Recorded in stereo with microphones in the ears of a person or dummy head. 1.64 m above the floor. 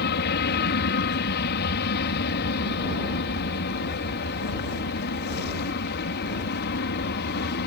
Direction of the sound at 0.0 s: 55° left (ahead or behind).